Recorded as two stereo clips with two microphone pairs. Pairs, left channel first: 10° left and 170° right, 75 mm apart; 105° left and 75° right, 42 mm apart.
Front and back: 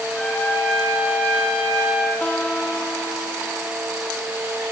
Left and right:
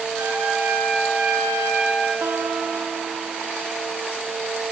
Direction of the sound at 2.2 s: 60° right.